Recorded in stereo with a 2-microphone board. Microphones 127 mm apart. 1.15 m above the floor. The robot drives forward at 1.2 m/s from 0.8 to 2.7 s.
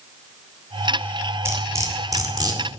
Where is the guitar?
I don't hear a guitar.